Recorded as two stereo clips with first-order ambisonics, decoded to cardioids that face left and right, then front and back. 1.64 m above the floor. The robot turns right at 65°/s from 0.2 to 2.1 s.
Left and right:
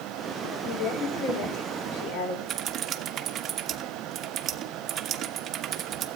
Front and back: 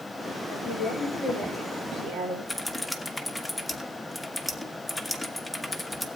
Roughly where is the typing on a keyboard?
Right.